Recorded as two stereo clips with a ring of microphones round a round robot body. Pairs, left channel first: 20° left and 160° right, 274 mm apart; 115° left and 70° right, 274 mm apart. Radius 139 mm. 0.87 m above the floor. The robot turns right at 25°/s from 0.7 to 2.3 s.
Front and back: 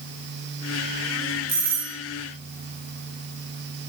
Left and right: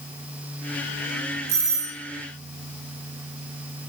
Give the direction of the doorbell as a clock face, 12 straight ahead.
3 o'clock.